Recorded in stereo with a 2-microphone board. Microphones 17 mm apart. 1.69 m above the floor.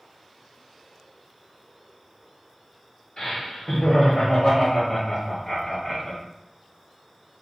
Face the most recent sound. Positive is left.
turn(degrees=10)  # may be behind; listen again after turning